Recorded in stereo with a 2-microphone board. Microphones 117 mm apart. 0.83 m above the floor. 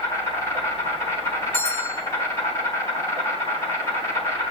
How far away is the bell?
About 5 m.